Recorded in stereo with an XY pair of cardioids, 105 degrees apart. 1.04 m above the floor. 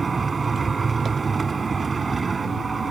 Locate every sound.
0.0 s a machine running: 35° right